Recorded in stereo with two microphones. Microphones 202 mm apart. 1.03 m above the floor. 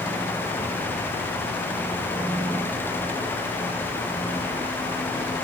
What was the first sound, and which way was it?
Only background noise.